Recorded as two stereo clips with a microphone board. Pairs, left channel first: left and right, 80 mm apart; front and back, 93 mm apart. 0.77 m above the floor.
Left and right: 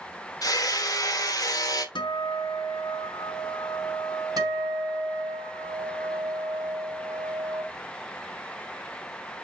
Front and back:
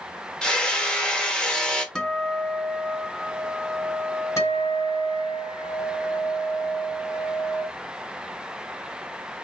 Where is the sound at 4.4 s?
55° right, 4.5 m.